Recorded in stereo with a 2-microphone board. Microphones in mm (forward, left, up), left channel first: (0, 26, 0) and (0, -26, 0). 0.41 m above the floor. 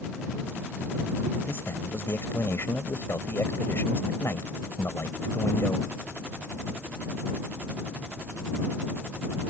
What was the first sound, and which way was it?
A man speaking, 55° left (ahead or behind).